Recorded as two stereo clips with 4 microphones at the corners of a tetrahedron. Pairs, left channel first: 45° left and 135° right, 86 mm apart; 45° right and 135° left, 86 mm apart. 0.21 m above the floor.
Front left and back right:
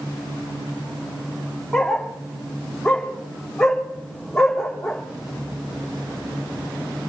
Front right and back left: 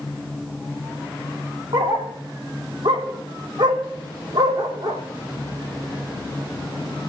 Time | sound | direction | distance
1.7 | a dog barking | 130° left | 3 m